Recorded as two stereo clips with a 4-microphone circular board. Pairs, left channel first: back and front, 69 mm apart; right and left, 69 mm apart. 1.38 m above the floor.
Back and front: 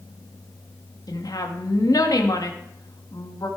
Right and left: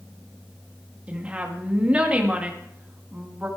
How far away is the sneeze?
I don't hear a sneeze.